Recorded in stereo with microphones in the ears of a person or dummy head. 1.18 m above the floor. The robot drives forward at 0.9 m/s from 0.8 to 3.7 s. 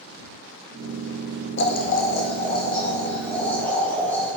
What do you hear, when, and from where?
1.6 s boiling: 50° left (ahead or behind), 0.6 m; by 4.3 s 10° left (ahead or behind), 2 m